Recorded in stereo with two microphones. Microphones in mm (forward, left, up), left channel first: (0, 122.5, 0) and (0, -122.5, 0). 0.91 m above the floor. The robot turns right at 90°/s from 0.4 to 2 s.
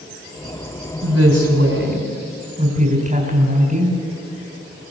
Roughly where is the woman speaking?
Behind right.